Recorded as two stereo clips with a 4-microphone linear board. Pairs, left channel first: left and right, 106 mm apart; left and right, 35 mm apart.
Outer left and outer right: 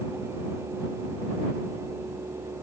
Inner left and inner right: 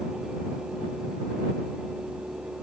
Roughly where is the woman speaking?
No woman speaking in this recording.